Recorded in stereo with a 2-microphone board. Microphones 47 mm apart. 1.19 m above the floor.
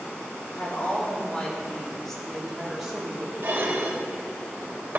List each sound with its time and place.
0.6 s a woman speaking: 35° left (ahead or behind), 4 m; by 3.3 s 20° right (ahead or behind), 3.5 m
3.4 s dishes clattering: 50° right (ahead or behind), 3.5 m